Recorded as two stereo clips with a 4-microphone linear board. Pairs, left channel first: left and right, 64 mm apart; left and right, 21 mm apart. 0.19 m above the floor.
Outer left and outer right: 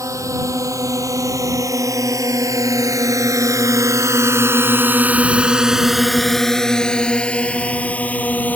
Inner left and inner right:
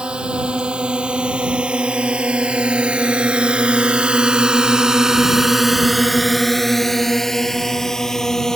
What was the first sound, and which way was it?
A drone, 60° right (ahead or behind).